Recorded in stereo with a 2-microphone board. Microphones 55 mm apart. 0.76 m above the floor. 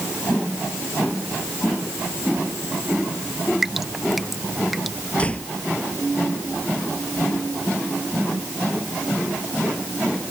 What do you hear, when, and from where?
3.6 s dripping: centre (ahead or behind)
5.2 s a door slam: 20° left (ahead or behind)